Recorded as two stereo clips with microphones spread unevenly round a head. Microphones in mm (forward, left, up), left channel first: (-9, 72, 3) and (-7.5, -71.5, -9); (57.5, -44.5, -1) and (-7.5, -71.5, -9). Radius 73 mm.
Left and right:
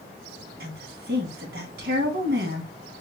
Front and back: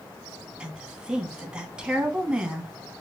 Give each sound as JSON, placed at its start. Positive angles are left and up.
{"t": 0.6, "sound": "a woman speaking", "azimuth_deg": -80, "distance_m": 1.5}